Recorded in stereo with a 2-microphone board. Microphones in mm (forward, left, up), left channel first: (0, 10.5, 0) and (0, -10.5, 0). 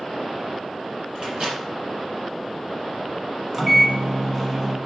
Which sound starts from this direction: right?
A microwave, at 1.1 s.